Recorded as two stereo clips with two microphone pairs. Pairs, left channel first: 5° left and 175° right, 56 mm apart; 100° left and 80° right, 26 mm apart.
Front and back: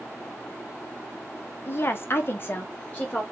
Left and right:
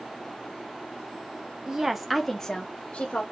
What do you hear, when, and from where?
1.7 s a woman speaking: 30° right, 0.6 m; by 3.2 s 70° left, 0.8 m